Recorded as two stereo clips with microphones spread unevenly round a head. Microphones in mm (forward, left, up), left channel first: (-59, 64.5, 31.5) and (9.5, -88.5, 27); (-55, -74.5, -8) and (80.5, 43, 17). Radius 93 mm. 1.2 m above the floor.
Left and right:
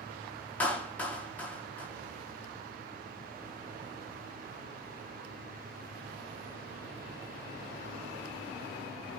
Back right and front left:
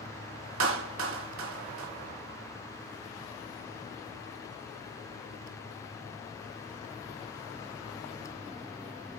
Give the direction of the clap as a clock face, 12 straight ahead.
11 o'clock.